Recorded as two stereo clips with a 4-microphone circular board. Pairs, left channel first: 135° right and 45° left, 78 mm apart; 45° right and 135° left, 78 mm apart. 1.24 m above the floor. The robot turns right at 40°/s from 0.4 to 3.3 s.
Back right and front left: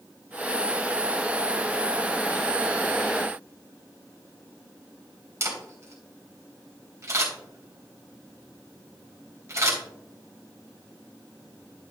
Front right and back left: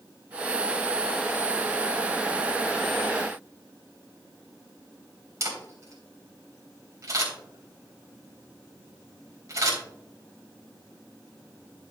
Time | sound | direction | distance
5.4 | a camera shutter | 95° left | 3 m